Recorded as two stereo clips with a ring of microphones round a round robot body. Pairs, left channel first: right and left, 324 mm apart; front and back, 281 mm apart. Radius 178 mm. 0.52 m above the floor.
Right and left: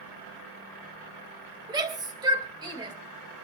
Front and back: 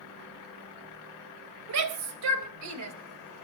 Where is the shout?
170° left, 3.5 m.